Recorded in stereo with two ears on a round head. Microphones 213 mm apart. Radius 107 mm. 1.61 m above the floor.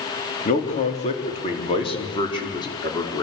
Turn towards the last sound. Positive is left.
turn(degrees=15)  # may be behind; listen again after turning